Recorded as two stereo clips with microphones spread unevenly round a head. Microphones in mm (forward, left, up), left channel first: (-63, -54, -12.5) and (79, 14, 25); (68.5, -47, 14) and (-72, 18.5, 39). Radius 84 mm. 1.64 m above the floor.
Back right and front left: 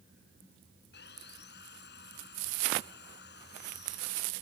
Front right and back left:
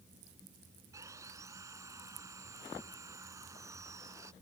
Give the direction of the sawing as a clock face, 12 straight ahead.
4 o'clock.